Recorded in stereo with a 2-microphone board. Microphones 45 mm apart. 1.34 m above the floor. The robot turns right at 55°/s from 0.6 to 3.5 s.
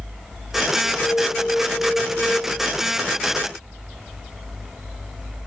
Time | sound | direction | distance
0.9 | an alarm | 130° left | 4.5 m